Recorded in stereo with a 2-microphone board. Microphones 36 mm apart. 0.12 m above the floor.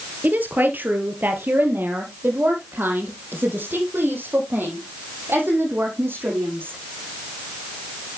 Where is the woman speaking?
55° right (ahead or behind), 2.0 m; by 6.8 s 70° right (ahead or behind), 5.5 m.